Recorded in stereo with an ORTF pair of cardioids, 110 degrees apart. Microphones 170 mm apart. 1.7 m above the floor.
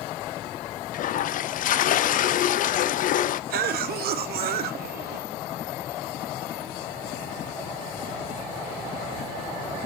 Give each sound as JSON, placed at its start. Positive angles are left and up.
{"t": 0.9, "sound": "a toilet flushing", "azimuth_deg": 55, "distance_m": 0.6}
{"t": 3.5, "sound": "a cough", "azimuth_deg": -65, "distance_m": 1.0}